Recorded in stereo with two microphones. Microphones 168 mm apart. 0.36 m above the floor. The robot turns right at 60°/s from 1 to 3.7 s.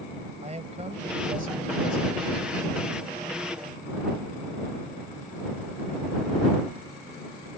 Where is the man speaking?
125° right; by 3.0 s 5° right.